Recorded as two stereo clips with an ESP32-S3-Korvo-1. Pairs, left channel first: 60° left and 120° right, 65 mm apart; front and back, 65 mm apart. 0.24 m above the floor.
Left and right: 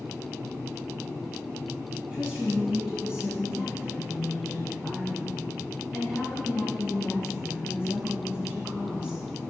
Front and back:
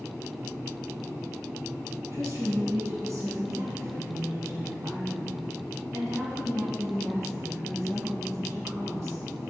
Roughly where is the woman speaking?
Behind.